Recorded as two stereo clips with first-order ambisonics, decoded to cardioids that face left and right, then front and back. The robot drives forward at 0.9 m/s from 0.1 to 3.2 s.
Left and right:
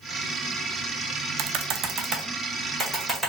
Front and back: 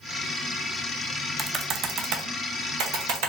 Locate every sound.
1.4 s typing on a keyboard: 95° right, 0.5 m; by 3.3 s 165° right, 1.8 m